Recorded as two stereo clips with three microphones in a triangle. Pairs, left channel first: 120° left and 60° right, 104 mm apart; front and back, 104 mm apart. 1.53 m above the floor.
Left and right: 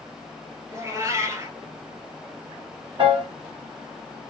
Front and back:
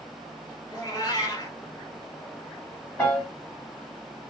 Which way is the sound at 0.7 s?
20° right.